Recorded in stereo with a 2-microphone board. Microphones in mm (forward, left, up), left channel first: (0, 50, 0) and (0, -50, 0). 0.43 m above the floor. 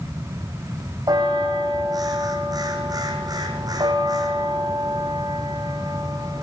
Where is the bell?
40° right (ahead or behind), 4.5 m.